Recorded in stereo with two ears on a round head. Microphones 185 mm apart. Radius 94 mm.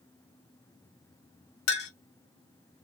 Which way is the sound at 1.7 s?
50° left (ahead or behind).